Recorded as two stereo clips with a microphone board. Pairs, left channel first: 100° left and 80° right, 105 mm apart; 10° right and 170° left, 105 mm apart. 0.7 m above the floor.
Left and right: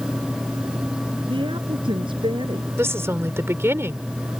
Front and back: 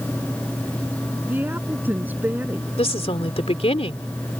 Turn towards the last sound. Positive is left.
turn(degrees=-15)